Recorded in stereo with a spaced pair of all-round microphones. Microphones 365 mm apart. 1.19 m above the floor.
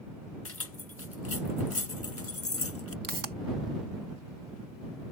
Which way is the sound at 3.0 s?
60° right (ahead or behind).